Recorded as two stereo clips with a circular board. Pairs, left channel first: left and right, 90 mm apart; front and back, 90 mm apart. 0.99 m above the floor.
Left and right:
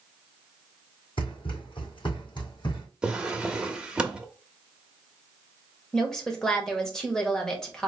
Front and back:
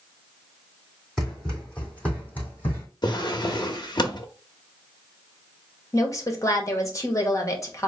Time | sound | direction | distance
1.2 | running footsteps | 85° left | 2.5 m
3.0 | a drawer | 10° right | 0.6 m
5.9 | a woman speaking | 15° left | 0.9 m